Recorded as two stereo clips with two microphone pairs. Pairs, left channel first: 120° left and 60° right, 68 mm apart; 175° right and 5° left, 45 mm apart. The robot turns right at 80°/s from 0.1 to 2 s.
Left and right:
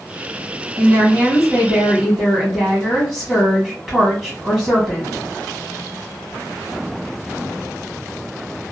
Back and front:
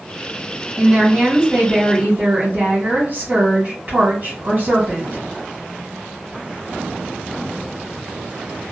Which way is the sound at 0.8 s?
75° right.